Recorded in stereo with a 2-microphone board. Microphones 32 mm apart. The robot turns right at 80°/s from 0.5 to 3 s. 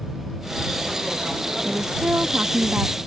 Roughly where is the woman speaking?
Behind right.